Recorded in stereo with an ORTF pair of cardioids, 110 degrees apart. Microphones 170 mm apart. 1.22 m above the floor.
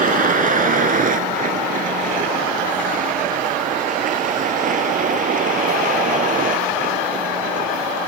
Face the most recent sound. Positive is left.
turn(degrees=-50)